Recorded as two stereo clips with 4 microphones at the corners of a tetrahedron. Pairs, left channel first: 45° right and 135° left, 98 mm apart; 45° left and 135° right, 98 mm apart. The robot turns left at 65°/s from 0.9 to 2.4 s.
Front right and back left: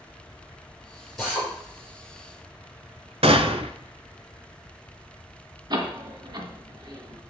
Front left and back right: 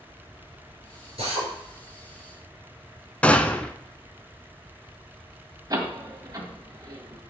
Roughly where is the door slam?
Behind.